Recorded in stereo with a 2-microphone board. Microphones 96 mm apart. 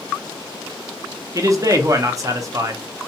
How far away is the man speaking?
About 0.6 m.